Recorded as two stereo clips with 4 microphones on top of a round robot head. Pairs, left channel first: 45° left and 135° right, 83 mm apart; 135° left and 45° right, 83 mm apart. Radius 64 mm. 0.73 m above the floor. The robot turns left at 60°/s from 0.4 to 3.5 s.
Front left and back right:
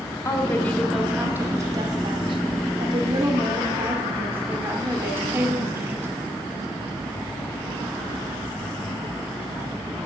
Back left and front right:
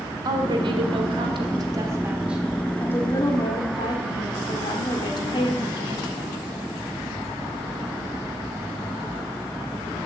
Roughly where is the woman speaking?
Ahead.